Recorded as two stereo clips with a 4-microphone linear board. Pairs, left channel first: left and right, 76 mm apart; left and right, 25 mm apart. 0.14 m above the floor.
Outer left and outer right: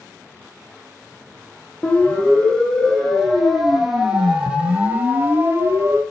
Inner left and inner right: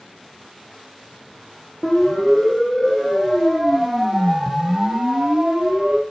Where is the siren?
15° left (ahead or behind), 6.5 m; by 6.0 s 35° right (ahead or behind), 5 m.